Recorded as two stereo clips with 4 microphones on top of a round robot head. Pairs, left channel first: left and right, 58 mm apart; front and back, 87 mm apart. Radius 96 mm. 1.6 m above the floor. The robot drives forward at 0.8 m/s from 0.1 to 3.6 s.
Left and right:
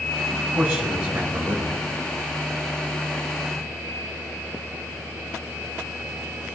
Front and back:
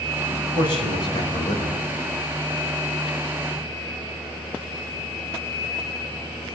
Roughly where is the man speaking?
Ahead.